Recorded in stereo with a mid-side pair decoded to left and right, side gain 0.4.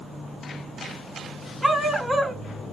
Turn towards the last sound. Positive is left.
turn(degrees=-10)